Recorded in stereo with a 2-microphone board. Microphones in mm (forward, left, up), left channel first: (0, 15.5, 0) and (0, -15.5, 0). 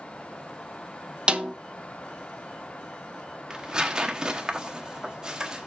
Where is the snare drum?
30° right (ahead or behind), 0.7 m.